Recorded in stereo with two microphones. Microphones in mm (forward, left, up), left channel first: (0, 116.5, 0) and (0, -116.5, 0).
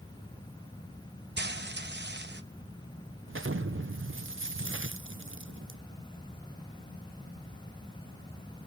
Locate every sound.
1.4 s frying: 50° right (ahead or behind), 0.9 m
3.3 s an explosion: 60° right (ahead or behind), 0.6 m